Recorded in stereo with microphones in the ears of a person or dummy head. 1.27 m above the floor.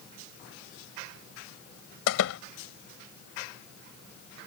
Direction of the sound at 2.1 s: 75° left (ahead or behind).